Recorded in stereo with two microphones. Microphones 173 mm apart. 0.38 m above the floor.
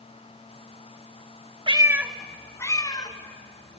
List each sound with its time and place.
1.7 s a cat meowing: 30° right (ahead or behind), 1.0 m; by 3.8 s 35° left (ahead or behind), 3 m